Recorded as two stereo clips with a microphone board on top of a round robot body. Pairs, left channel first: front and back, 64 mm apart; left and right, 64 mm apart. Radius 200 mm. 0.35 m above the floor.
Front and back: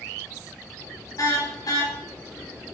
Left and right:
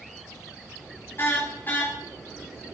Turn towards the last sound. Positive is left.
turn(degrees=20)